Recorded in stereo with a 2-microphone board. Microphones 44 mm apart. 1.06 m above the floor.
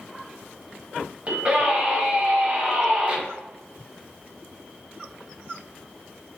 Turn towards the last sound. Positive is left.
turn(degrees=-35)  # may be behind; listen again after turning